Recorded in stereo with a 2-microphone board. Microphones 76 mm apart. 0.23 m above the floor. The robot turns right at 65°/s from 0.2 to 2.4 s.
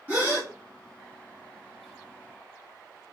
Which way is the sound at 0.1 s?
25° right (ahead or behind).